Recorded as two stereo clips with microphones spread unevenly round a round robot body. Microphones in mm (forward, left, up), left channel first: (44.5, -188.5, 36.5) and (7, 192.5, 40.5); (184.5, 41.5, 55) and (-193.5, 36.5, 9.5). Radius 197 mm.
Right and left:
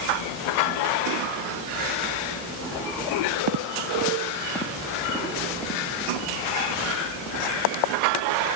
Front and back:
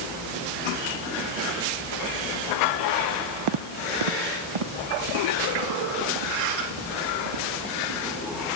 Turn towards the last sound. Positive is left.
turn(degrees=-170)